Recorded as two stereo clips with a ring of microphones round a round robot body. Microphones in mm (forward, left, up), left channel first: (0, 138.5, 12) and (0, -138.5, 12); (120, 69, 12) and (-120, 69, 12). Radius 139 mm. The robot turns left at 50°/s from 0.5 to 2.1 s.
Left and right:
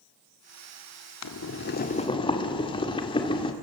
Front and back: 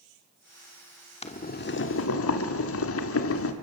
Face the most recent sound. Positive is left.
turn(degrees=20)